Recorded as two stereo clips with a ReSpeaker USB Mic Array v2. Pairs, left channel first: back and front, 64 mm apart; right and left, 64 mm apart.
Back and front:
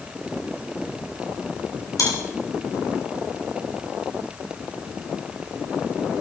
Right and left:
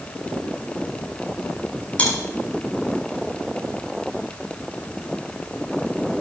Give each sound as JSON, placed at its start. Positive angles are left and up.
{"t": 2.0, "sound": "chewing", "azimuth_deg": -160, "distance_m": 9.0}